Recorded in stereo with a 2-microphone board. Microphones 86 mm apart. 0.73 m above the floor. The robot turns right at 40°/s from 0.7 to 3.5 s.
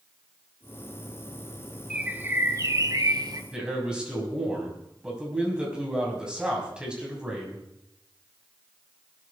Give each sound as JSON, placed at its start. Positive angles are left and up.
{"t": 1.9, "sound": "a bird", "azimuth_deg": -165, "distance_m": 1.0}
{"t": 3.5, "sound": "a man speaking", "side_deg": -10, "distance_m": 6.5}